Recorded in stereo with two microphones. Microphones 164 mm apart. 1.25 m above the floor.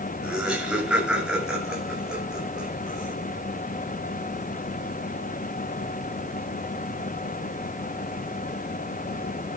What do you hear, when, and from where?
0.2 s laughter: 5° right (ahead or behind), 7 m; by 3.1 s centre (ahead or behind), 10.5 m